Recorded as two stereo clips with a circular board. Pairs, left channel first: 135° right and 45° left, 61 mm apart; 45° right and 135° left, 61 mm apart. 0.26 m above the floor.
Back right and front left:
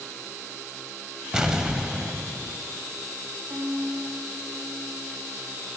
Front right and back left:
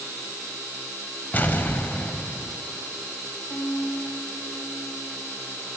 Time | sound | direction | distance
1.3 | an explosion | 25° right | 0.5 m
3.5 | a violin | 20° right | 1.4 m